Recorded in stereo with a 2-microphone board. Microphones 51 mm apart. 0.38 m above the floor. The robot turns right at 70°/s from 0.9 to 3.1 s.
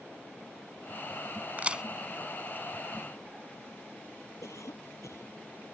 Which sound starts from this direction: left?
A cough, at 4.4 s.